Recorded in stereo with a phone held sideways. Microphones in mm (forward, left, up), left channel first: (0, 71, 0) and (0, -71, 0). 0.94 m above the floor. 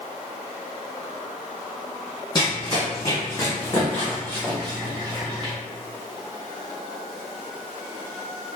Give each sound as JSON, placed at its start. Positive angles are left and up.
{"t": 2.4, "sound": "running footsteps", "side_deg": 30, "distance_m": 1.8}